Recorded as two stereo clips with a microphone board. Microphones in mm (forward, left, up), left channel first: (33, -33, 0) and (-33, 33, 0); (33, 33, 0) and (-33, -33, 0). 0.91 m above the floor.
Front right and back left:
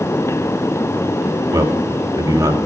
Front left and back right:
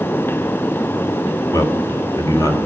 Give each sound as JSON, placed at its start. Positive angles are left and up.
{"t": 1.5, "sound": "a man speaking", "azimuth_deg": 90, "distance_m": 1.6}